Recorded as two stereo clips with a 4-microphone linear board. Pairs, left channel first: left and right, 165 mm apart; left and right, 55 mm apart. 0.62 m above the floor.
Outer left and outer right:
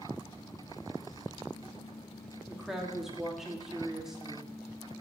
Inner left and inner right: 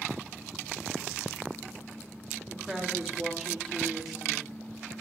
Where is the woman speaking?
5° right (ahead or behind), 1.0 m.